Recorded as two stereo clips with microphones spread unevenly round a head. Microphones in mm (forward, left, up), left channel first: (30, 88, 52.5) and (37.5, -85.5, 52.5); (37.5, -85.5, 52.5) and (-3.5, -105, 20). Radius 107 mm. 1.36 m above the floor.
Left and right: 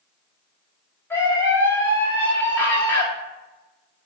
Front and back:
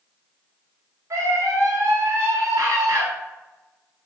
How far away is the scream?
About 2.5 m.